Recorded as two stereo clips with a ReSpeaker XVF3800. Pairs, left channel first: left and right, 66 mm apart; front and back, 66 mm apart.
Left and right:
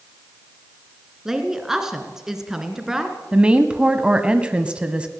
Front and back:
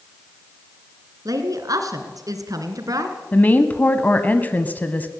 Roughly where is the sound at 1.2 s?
Behind.